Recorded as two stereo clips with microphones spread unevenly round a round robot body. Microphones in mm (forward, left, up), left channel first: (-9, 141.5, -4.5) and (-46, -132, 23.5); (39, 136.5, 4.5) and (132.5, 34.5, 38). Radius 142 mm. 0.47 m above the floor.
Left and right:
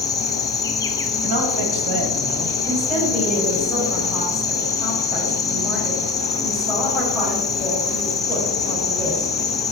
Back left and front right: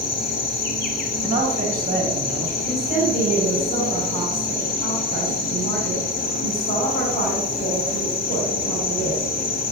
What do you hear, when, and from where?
0.0 s an insect: 160° left, 0.8 m
1.2 s a man speaking: 105° right, 2.5 m
2.6 s a woman speaking: 175° left, 4.5 m